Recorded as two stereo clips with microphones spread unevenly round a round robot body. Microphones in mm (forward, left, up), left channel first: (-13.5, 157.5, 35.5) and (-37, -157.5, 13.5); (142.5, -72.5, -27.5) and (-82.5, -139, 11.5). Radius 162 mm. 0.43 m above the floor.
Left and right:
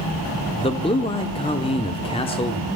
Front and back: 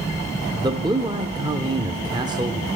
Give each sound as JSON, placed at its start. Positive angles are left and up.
{"t": 0.6, "sound": "a man speaking", "azimuth_deg": 130, "distance_m": 0.7}